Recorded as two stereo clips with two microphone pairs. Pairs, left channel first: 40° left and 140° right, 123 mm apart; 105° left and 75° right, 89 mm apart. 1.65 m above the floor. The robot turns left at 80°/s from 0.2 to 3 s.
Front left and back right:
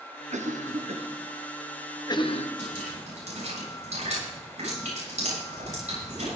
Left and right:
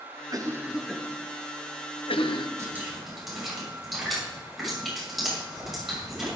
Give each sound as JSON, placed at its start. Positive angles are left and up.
{"t": 0.3, "sound": "a cough", "azimuth_deg": -115, "distance_m": 1.2}
{"t": 2.6, "sound": "dripping", "azimuth_deg": -130, "distance_m": 7.0}